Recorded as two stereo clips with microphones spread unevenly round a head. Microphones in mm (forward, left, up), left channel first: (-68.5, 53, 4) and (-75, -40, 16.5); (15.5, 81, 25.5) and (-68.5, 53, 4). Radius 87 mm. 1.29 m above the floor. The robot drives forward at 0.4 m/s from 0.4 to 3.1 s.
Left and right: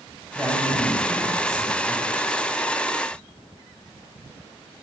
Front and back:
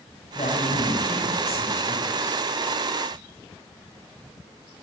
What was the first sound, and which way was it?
A man speaking, 20° right.